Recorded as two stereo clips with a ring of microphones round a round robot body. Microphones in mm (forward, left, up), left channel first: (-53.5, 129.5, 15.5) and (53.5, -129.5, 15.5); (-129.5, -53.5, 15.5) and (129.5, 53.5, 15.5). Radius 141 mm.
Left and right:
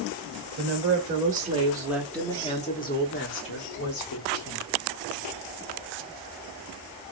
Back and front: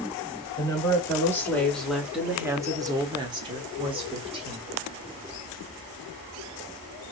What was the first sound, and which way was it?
A woman speaking, 85° right.